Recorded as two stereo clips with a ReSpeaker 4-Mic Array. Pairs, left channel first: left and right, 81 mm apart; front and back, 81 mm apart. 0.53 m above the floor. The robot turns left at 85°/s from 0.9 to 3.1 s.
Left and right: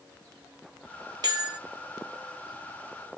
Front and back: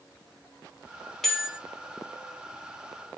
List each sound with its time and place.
1.2 s a bell: 85° right, 0.9 m; by 1.6 s 115° right, 0.9 m